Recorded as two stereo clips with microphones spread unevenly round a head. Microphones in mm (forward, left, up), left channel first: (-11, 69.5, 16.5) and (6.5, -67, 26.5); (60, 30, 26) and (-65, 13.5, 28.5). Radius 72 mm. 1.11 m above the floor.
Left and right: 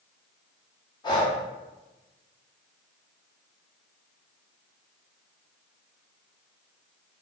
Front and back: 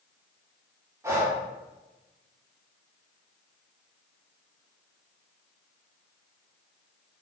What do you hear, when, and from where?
1.0 s breathing: 130° left, 0.9 m